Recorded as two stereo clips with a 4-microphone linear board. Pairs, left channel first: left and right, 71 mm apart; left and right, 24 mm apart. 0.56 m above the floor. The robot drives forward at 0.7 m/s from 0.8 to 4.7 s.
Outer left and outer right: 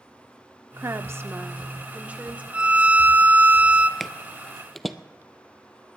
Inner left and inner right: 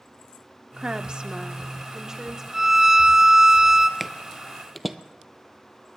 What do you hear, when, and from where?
0.8 s a woman speaking: 40° right (ahead or behind), 0.8 m; by 2.4 s 20° right (ahead or behind), 1.6 m
2.5 s a violin: 15° right (ahead or behind), 0.7 m
4.0 s footsteps: centre (ahead or behind), 0.5 m